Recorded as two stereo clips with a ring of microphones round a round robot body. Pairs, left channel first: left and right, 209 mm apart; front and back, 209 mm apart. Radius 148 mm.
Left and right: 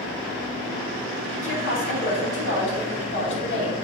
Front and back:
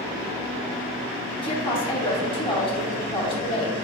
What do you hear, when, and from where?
1.4 s a woman speaking: 65° left, 3 m